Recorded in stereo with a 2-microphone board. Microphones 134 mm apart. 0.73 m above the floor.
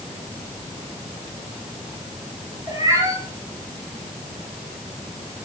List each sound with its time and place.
2.7 s a cat meowing: 25° right (ahead or behind), 6 m